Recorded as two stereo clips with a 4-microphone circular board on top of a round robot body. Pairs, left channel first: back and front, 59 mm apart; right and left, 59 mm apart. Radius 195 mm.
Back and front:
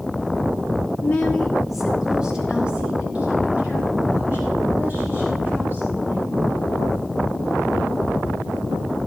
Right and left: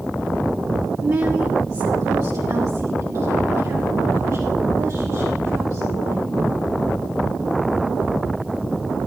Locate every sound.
1.0 s a woman speaking: 130° left, 1.0 m; by 6.4 s 55° left, 7 m